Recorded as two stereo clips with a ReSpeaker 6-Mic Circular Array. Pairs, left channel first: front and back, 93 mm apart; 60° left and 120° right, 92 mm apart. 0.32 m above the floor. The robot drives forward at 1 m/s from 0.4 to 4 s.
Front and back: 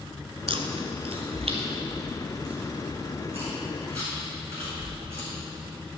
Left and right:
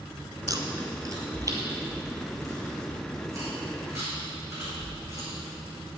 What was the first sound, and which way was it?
Chewing, 170° right.